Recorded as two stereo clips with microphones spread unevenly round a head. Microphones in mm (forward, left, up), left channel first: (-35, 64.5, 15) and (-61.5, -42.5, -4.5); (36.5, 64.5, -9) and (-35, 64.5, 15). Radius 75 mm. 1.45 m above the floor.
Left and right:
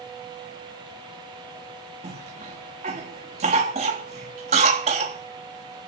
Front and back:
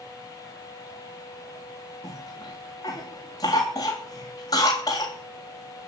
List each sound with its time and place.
2.0 s a cough: 60° right, 3.5 m